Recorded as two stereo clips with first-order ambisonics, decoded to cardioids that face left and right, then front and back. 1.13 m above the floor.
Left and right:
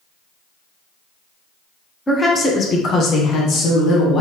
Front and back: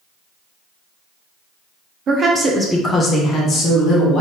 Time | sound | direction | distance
2.1 | a woman speaking | 160° left | 0.7 m